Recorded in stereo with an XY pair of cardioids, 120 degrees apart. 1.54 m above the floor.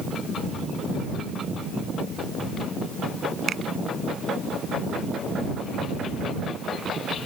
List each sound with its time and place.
3.5 s a finger snap: 45° right